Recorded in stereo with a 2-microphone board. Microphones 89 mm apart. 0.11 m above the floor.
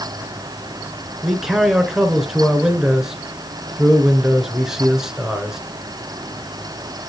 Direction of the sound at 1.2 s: 5° right (ahead or behind).